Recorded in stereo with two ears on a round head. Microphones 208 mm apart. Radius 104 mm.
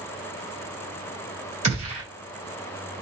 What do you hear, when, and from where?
1.6 s a gunshot: 30° right (ahead or behind), 1.8 m